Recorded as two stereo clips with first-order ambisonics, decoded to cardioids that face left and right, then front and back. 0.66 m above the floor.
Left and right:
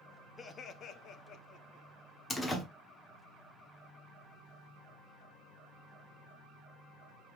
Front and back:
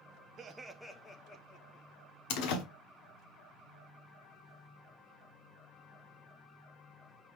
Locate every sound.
0.4 s laughter: 140° left, 0.5 m; by 1.9 s 45° left, 1.0 m
2.3 s a door slam: 10° left, 1.0 m